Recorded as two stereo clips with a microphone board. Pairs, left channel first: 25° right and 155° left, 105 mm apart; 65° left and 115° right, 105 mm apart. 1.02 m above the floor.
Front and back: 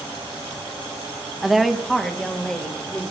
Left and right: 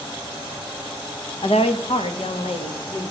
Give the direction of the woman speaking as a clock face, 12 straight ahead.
10 o'clock.